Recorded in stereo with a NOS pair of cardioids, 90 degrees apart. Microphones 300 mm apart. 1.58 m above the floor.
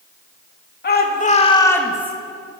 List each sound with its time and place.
0.8 s a shout: 35° left, 3 m; by 2.1 s 10° right, 1.9 m